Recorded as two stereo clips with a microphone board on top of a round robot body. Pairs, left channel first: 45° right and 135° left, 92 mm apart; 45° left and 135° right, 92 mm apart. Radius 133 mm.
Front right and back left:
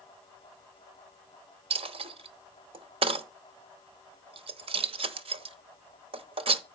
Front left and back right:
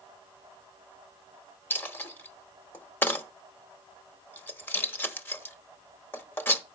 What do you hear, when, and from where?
1.7 s a dropped coin: 115° left, 0.8 m